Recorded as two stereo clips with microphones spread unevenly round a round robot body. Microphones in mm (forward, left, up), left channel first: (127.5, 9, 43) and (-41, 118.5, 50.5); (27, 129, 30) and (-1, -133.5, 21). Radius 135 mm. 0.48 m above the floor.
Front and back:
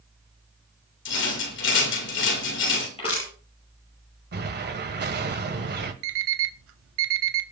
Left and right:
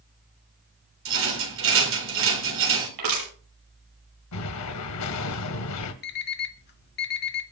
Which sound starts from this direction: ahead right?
A rattle, at 1.1 s.